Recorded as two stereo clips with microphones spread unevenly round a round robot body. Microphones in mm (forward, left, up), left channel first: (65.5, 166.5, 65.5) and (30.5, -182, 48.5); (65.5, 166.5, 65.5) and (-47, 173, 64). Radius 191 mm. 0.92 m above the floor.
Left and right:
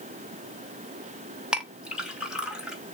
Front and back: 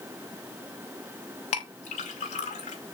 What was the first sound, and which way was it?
A clink, 10° right.